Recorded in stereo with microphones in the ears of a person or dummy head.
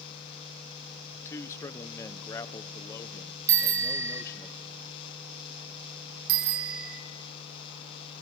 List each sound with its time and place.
1.1 s a man speaking: 15° left (ahead or behind), 1.2 m
3.5 s a bicycle bell: 15° right (ahead or behind), 2 m
6.3 s a bicycle bell: 65° right (ahead or behind), 2 m